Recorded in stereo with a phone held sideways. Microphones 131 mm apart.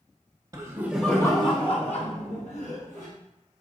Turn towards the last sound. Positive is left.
turn(degrees=65)  # may be behind; listen again after turning